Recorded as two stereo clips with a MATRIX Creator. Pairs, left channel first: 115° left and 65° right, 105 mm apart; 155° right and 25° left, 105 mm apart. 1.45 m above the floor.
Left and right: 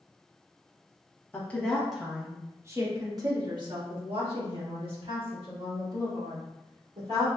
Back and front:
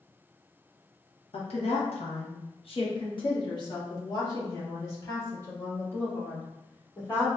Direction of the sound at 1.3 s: 175° right.